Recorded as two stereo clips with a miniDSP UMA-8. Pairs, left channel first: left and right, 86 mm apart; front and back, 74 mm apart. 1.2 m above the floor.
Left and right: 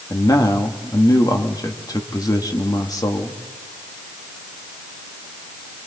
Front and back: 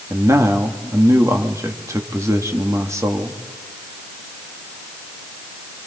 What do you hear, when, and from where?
0.1 s a man speaking: 135° left, 1.8 m